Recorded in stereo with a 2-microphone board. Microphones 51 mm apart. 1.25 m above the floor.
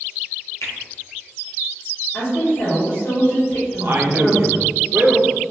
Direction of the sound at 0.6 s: 65° left (ahead or behind).